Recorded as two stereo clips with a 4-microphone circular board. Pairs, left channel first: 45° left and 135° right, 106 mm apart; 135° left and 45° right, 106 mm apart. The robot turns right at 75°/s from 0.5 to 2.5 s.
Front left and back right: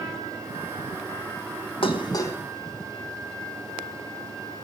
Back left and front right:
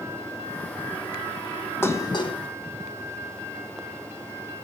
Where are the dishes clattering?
70° left, 1.3 m; by 2.4 s 110° left, 1.3 m.